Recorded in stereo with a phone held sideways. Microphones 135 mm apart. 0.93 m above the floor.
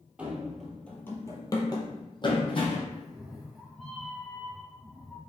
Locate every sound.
0.2 s running footsteps: 10° right (ahead or behind), 1.0 m; by 2.8 s 40° left (ahead or behind), 1.7 m
2.9 s a cat meowing: centre (ahead or behind), 1.1 m